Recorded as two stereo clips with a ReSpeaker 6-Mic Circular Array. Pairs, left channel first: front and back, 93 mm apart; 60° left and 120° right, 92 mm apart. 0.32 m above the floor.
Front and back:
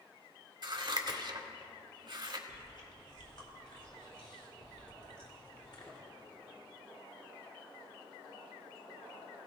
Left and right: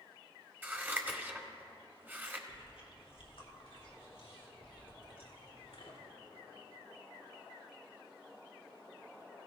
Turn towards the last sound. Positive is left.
turn(degrees=35)